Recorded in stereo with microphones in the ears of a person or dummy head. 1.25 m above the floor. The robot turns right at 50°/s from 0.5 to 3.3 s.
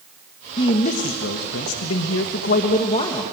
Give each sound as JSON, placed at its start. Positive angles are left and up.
{"t": 0.6, "sound": "a man speaking", "azimuth_deg": 30, "distance_m": 1.4}